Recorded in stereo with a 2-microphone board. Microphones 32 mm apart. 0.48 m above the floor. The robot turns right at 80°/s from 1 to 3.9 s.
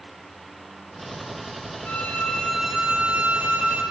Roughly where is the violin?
Behind left.